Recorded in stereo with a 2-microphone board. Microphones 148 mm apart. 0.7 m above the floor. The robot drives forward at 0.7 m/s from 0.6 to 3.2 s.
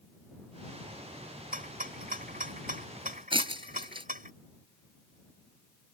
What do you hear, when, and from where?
1.5 s a rattle: 75° right (ahead or behind); by 4.3 s 70° right (ahead or behind)
3.3 s breaking glass: 35° right (ahead or behind)